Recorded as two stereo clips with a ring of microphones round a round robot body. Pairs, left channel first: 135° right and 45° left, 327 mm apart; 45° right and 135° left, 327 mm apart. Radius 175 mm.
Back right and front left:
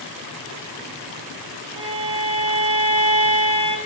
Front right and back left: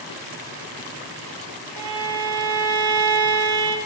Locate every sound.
1.8 s a violin: 120° left, 1.3 m